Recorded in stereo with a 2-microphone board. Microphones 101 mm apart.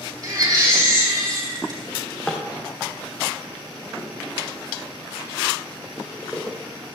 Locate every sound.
0.2 s a baby crying: 35° right (ahead or behind), 3 m
1.9 s a drawer: 10° left (ahead or behind), 2.5 m